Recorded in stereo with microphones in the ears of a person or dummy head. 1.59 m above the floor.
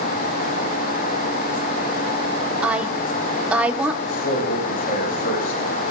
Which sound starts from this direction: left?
A man speaking, at 4.1 s.